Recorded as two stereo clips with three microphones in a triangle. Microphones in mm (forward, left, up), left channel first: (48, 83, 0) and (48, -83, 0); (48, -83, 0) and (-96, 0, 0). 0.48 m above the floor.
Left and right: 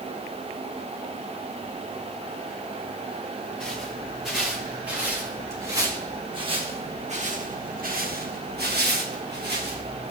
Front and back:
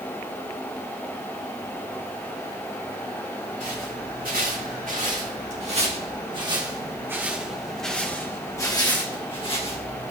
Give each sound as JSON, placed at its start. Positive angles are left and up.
{"t": 3.6, "sound": "footsteps", "azimuth_deg": 175, "distance_m": 3.5}